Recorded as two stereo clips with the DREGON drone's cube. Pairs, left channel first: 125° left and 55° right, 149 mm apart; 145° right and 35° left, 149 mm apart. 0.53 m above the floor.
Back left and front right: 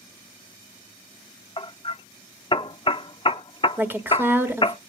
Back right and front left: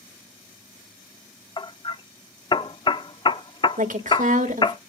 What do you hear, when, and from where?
1.6 s hammering: 165° left, 0.5 m
3.8 s a woman speaking: 20° left, 1.5 m